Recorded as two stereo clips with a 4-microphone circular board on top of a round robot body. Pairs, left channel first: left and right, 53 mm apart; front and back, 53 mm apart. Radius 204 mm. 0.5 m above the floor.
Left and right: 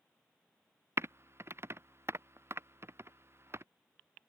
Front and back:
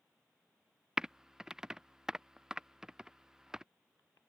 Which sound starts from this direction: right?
Typing on a keyboard, at 1.0 s.